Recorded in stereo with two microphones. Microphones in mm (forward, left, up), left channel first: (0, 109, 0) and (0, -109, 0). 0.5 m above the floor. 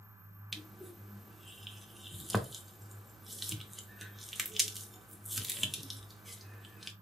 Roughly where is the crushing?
Centre.